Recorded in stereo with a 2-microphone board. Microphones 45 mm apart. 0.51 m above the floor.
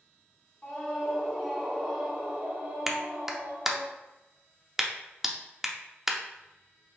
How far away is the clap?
About 0.5 m.